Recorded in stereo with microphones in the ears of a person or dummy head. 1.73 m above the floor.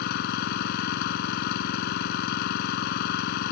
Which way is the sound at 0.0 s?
60° left (ahead or behind).